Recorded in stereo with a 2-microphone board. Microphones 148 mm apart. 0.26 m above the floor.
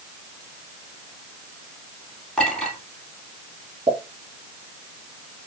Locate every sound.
2.4 s a clink: 5° left (ahead or behind), 3.5 m
3.9 s a pop: 40° right (ahead or behind), 2.5 m